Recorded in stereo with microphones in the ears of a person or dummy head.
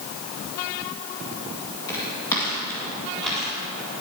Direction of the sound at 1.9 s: 15° left (ahead or behind).